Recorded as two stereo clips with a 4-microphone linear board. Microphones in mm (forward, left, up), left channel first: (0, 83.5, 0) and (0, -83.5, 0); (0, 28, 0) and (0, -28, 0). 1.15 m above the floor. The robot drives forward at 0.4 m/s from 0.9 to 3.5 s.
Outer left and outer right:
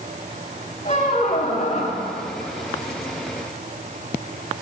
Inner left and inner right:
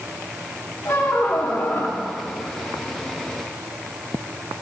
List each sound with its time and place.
0.8 s a squeak: 40° left (ahead or behind), 0.8 m